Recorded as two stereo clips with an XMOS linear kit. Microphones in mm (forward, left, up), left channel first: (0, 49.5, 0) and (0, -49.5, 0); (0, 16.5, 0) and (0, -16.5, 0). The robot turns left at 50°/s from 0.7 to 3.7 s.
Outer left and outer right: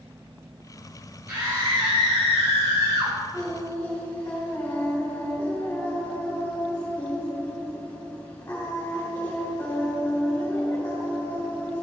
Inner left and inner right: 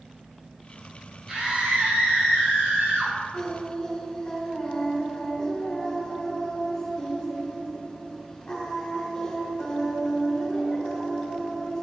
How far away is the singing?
About 3 m.